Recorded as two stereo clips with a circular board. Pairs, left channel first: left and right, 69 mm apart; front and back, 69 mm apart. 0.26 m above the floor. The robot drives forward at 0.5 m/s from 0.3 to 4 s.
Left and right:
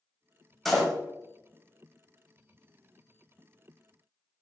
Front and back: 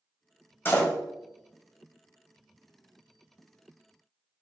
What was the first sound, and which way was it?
A door slam, 5° left.